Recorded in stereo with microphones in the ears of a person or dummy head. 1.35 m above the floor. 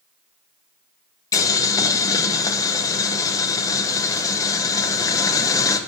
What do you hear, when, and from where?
1.3 s boiling: 15° left (ahead or behind), 0.8 m